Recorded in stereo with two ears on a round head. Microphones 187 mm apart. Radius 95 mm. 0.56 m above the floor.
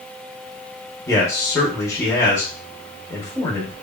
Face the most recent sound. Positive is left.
turn(degrees=15)  # may be behind; listen again after turning